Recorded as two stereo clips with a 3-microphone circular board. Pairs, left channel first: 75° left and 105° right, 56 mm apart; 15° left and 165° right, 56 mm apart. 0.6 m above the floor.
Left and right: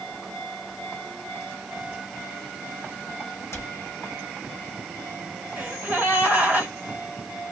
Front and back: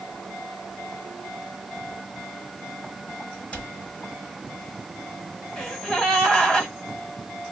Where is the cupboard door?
80° left, 1.1 m.